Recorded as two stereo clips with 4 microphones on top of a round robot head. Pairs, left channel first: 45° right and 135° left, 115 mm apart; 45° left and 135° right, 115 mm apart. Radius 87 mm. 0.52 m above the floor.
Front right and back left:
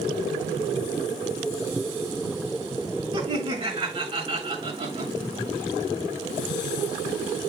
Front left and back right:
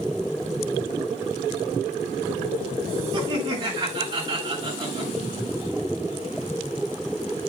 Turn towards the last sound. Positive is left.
turn(degrees=175)